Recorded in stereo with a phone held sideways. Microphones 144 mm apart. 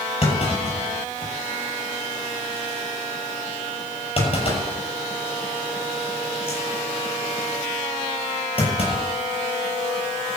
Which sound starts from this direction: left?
A clunk, at 0.2 s.